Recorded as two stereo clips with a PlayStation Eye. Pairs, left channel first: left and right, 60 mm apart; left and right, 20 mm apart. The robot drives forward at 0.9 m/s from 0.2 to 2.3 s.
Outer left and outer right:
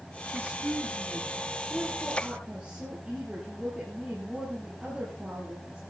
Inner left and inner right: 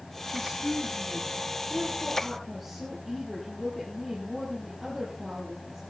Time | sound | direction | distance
0.3 | a woman speaking | 25° right (ahead or behind) | 3 m